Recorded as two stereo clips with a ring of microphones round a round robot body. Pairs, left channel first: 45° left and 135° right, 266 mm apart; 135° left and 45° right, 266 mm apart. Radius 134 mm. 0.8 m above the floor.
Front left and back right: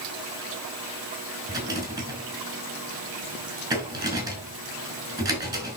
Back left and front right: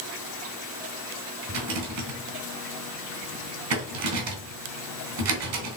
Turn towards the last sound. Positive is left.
turn(degrees=-60)